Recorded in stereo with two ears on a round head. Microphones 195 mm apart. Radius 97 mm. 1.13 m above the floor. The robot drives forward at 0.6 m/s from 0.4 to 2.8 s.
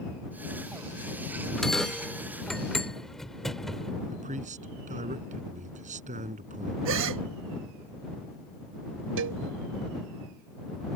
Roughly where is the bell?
Centre.